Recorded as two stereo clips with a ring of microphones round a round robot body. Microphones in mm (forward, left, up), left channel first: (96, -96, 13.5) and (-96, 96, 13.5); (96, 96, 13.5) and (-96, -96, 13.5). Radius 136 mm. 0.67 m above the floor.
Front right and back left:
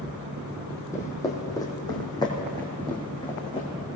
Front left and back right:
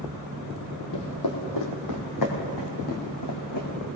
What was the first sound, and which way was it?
Footsteps, 35° left.